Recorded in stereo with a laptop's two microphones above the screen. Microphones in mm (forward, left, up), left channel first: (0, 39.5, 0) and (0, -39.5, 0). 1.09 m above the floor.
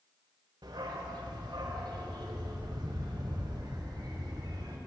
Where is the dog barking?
70° right (ahead or behind), 1.9 m; by 4.8 s 60° right (ahead or behind), 3 m.